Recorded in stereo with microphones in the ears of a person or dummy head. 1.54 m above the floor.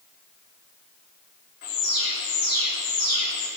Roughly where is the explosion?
No explosion in this recording.